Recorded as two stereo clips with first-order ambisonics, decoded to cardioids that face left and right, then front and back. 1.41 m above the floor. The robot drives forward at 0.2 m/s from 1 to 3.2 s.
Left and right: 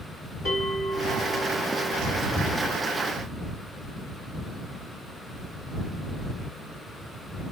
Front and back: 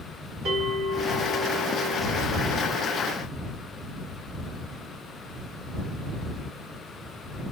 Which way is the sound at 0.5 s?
130° left.